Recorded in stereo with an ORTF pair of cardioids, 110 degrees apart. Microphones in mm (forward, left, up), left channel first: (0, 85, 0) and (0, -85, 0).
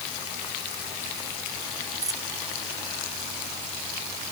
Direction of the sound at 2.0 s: 20° right.